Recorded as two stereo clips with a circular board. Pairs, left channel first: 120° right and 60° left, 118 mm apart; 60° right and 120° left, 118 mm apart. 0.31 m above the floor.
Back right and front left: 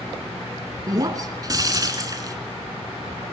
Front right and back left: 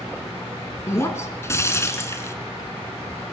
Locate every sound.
0.9 s breaking glass: 5° left, 2 m